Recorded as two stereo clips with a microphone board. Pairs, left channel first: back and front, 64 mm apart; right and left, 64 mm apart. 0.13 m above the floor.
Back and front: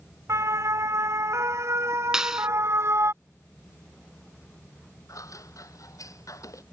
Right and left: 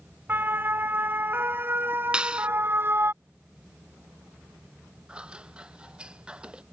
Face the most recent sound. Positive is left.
turn(degrees=160)